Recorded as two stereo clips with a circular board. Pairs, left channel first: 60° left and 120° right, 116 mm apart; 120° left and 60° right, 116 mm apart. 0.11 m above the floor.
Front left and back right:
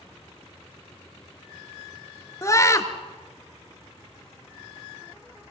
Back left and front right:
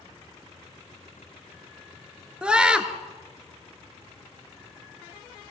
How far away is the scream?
About 1.5 m.